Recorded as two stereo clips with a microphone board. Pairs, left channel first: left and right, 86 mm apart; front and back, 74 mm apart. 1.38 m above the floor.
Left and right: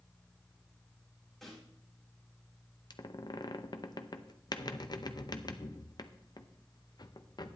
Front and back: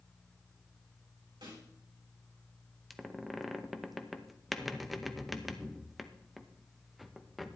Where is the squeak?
90° left, 0.6 m.